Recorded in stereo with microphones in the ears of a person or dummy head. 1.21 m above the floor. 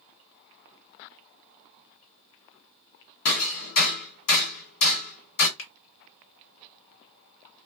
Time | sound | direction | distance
3.2 | hammering | 65° left (ahead or behind) | 1.5 m
5.6 | a finger snap | 75° left (ahead or behind) | 1.2 m